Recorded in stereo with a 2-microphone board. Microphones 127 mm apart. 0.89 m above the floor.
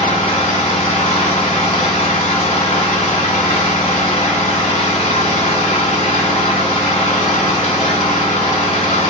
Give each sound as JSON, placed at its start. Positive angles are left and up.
{"t": 0.0, "sound": "an engine running", "side_deg": 70, "distance_m": 1.2}